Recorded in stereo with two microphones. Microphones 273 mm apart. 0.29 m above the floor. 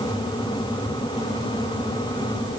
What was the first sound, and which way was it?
Only background noise.